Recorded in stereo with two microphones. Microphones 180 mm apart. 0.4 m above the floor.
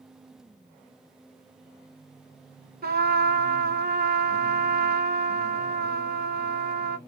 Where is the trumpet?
60° right (ahead or behind), 0.7 m.